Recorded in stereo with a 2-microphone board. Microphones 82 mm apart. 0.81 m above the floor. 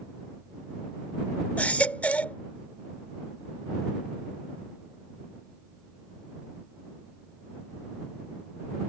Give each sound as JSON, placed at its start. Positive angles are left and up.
{"t": 1.6, "sound": "a baby crying", "side_deg": 20}